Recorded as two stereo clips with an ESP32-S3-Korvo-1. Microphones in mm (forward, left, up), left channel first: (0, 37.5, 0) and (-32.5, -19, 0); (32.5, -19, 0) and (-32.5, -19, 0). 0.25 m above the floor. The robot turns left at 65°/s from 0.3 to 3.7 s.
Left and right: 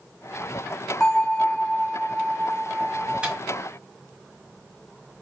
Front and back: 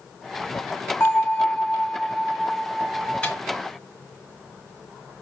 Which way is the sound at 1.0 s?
15° right.